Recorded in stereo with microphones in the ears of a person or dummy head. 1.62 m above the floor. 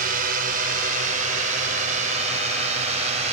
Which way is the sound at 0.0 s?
50° right (ahead or behind).